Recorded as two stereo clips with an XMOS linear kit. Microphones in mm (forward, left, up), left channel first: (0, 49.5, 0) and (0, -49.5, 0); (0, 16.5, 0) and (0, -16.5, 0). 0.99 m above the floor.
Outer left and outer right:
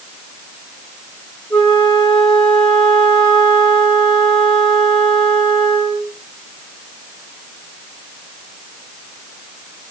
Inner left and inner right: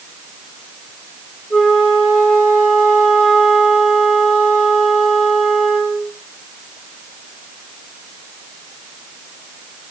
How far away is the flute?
About 4.5 m.